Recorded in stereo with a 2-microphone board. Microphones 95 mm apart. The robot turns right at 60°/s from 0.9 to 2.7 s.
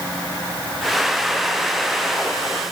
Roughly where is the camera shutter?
I don't hear a camera shutter.